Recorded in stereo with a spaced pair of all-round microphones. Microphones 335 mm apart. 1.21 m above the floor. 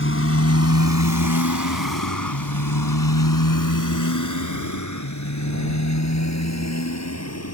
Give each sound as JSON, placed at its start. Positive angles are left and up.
{"t": 0.0, "sound": "a motorcycle", "side_deg": 35}